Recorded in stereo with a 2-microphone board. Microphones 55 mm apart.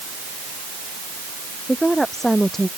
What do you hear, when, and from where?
1.7 s a woman speaking: 5° left (ahead or behind)